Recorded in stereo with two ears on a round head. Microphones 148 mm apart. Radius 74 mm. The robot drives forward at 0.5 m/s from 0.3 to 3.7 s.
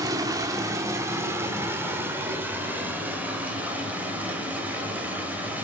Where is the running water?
20° right (ahead or behind), 1.4 m; by 5.7 s 10° right (ahead or behind), 3 m.